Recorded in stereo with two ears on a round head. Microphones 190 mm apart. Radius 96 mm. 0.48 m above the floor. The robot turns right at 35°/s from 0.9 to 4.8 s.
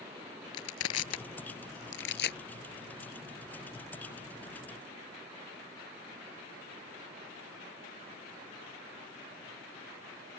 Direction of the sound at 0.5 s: 75° left (ahead or behind).